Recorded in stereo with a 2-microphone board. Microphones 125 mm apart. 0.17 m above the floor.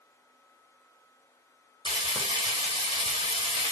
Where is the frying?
40° right (ahead or behind), 1.3 m.